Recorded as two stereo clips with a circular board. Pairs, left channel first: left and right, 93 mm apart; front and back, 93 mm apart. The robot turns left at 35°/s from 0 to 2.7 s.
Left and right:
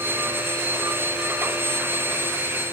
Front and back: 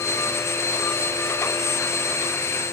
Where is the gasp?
No gasp in this recording.